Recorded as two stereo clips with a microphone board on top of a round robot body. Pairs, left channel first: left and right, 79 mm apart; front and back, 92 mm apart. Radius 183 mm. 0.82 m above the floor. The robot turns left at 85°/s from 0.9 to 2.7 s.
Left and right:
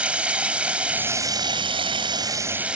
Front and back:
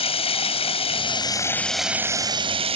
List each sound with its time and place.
0.0 s running water: 15° right; by 2.8 s 165° right